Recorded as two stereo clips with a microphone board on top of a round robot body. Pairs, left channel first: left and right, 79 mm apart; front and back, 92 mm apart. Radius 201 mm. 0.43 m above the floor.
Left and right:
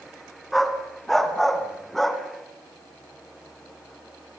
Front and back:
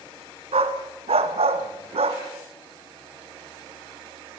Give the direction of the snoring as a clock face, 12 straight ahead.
I don't hear snoring.